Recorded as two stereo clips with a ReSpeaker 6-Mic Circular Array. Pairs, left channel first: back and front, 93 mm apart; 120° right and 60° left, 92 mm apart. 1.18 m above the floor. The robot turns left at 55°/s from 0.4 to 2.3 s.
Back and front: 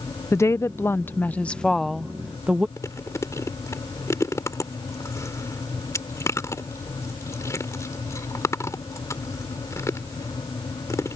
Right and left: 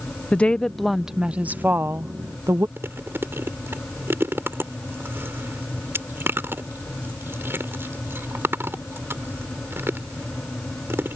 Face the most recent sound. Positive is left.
turn(degrees=125)